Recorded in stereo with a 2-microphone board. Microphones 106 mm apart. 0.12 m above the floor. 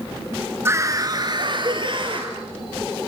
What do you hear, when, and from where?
0.7 s a scream: 25° right (ahead or behind), 1.2 m; by 2.3 s 55° right (ahead or behind), 2.5 m